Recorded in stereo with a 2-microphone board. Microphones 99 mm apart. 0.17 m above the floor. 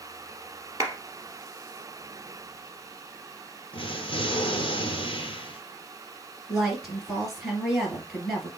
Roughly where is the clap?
Right.